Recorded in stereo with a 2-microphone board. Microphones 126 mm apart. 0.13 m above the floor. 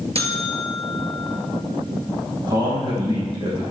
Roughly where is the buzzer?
Right.